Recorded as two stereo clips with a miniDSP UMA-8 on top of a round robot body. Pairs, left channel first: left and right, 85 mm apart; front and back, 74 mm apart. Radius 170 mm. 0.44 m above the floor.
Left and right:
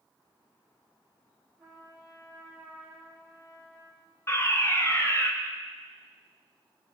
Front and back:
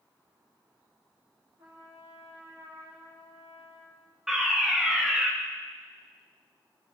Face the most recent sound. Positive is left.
turn(degrees=100)